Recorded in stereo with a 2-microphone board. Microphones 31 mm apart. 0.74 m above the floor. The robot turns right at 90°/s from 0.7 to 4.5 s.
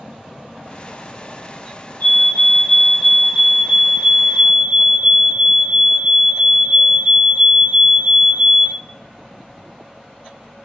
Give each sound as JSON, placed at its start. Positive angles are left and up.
{"t": 2.0, "sound": "a fire alarm", "azimuth_deg": 90, "distance_m": 5.5}